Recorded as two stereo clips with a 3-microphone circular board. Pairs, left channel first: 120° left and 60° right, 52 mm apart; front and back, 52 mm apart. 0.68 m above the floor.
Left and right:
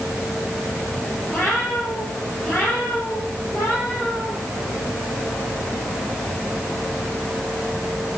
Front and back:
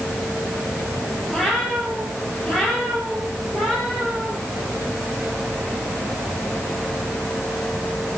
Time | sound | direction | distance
1.3 | a cat meowing | 80° left | 10 m